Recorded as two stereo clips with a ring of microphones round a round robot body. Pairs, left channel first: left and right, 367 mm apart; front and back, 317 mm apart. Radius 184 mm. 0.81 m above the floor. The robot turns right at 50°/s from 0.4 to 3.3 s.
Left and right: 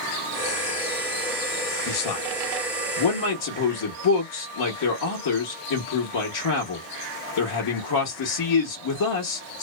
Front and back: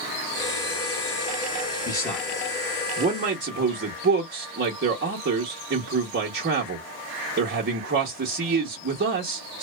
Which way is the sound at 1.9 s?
55° left.